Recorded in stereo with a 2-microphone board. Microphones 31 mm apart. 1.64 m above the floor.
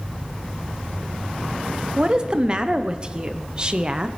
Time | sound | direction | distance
2.0 | a woman speaking | 25° right (ahead or behind) | 0.8 m